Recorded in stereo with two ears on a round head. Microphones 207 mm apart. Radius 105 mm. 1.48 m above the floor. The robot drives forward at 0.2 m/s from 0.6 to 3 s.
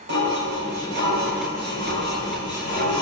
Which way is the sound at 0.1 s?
50° right (ahead or behind).